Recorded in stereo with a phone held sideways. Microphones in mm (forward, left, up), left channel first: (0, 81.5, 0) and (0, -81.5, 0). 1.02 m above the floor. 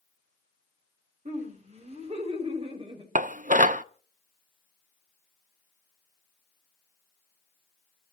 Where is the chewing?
No chewing in this recording.